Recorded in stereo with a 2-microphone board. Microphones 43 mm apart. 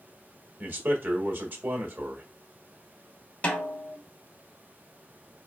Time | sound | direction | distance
0.6 | a man speaking | 50° right (ahead or behind) | 1.7 m
3.4 | a snare drum | 30° left (ahead or behind) | 1.8 m